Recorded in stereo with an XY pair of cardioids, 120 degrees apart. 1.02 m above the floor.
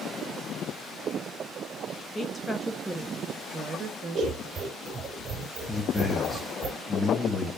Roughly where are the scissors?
Ahead right.